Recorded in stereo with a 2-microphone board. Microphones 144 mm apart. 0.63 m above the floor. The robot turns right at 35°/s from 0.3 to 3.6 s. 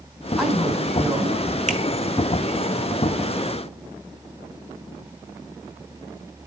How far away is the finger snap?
About 1.6 m.